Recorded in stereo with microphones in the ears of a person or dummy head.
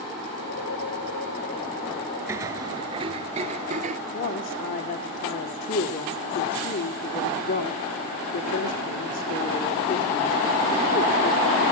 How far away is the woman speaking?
About 3.5 m.